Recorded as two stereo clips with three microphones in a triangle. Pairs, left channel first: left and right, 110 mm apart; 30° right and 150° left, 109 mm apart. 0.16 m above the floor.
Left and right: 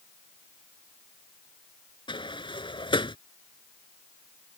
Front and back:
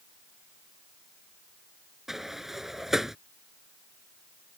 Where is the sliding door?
65° left.